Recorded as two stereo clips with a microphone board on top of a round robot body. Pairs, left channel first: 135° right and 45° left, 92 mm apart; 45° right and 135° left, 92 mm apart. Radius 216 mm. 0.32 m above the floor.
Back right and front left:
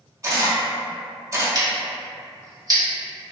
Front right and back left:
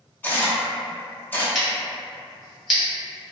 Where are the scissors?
45° left, 1.9 m.